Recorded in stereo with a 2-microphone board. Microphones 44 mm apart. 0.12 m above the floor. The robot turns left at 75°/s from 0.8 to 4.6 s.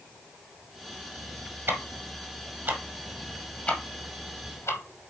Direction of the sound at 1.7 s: 50° right (ahead or behind).